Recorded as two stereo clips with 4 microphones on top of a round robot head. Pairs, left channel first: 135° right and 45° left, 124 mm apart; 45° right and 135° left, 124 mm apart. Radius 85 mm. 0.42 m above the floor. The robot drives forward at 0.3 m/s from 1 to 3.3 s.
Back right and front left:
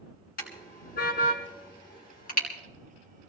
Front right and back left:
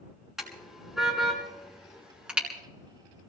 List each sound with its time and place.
0.4 s a car horn: 140° right, 3 m; by 2.5 s 145° right, 3 m